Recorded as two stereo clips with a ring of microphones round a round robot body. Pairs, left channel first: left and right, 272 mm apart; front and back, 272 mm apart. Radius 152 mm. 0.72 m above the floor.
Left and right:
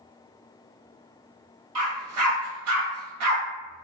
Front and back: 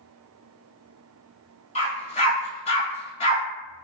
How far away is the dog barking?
About 1.4 m.